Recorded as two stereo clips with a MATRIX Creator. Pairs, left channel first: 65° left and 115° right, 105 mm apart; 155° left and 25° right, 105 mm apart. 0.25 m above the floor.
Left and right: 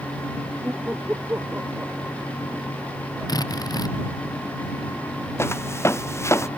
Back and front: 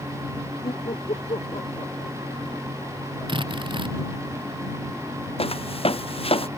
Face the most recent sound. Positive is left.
turn(degrees=130)